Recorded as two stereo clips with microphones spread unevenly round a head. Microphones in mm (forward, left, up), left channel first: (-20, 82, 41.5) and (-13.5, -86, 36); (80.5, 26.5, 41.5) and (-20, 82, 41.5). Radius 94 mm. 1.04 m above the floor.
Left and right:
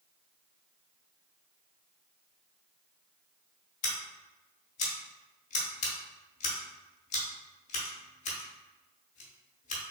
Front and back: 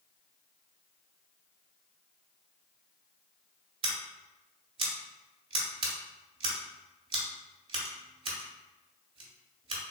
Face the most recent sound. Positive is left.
turn(degrees=125)